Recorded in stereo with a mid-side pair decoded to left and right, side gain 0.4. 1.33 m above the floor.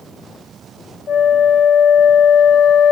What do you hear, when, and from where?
1.1 s a flute: 65° left, 0.5 m